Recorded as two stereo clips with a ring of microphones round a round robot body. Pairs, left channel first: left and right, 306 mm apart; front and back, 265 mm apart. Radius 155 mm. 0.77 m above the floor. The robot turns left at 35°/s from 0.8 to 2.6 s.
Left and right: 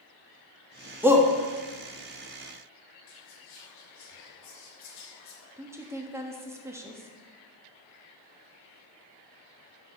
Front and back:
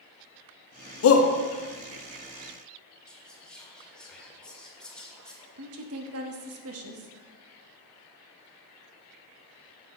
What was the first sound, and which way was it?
A shout, 5° right.